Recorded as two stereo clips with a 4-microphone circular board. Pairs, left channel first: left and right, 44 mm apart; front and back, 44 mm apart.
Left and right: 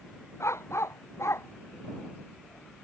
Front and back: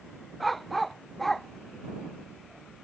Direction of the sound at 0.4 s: 90° left.